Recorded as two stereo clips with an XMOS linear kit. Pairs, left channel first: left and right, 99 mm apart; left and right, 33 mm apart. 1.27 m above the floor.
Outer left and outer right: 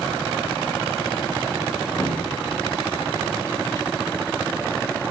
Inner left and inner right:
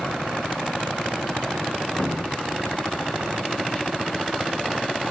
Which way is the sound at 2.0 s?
30° left (ahead or behind).